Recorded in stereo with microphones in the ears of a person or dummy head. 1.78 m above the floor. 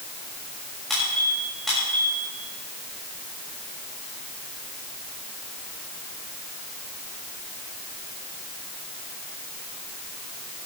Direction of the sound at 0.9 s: Centre (ahead or behind).